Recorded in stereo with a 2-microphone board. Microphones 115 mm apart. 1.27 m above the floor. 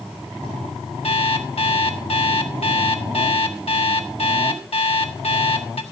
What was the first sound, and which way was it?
An alarm clock, 60° left (ahead or behind).